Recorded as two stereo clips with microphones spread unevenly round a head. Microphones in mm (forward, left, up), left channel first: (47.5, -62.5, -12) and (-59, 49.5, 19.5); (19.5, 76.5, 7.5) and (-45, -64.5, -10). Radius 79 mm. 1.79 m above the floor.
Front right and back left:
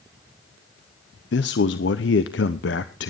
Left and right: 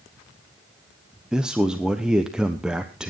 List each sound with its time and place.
1.3 s a man speaking: 25° right, 0.9 m